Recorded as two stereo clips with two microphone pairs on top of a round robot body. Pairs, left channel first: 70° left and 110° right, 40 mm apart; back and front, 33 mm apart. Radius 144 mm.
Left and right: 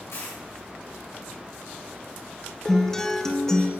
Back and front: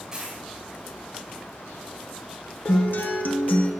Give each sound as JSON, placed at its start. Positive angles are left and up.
{"t": 0.1, "sound": "a dropped coin", "azimuth_deg": 70, "distance_m": 3.0}
{"t": 2.6, "sound": "a guitar", "azimuth_deg": 155, "distance_m": 0.9}